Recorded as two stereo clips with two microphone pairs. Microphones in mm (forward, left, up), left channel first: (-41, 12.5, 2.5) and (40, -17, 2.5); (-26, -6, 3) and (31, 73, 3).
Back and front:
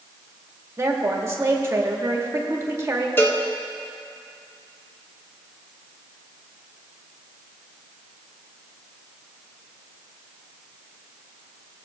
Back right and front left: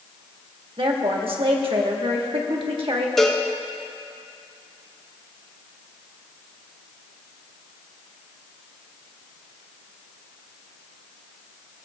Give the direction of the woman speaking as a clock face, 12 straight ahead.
11 o'clock.